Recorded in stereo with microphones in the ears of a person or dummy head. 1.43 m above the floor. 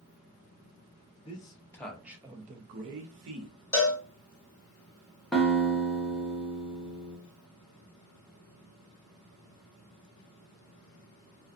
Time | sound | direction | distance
1.2 | a man speaking | 25° left (ahead or behind) | 1.1 m
3.7 | a cowbell | 15° left (ahead or behind) | 1.3 m
5.3 | a guitar | centre (ahead or behind) | 0.7 m